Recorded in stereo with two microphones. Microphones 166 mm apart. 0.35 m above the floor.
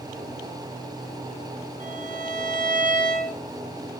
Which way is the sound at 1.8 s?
55° right (ahead or behind).